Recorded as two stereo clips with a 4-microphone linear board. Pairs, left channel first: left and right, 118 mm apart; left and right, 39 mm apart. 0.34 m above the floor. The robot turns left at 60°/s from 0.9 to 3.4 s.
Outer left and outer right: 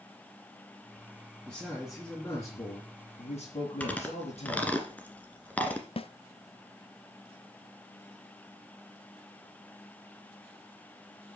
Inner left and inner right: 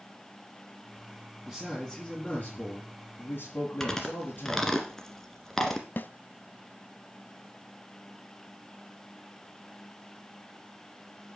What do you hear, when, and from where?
1.5 s a man speaking: 155° right, 4.5 m; by 4.8 s 85° left, 4.5 m
3.8 s chewing: 10° left (ahead or behind), 1.8 m
6.0 s a snare drum: 55° left (ahead or behind), 0.6 m